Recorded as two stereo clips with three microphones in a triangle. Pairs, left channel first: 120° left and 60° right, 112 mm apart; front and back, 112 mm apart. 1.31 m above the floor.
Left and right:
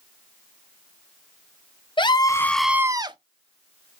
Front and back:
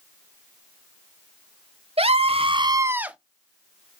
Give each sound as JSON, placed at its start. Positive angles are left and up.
{"t": 2.0, "sound": "a scream", "azimuth_deg": 160, "distance_m": 0.8}